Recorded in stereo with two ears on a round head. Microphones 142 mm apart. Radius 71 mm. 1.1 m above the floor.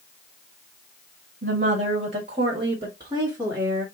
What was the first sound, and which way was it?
A woman speaking, 55° right (ahead or behind).